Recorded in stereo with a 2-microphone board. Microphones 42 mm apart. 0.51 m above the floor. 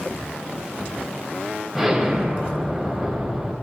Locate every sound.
1.8 s an explosion: 5° right (ahead or behind), 3 m